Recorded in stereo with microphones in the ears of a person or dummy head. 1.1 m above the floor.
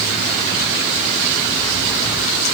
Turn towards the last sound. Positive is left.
No sound to turn to.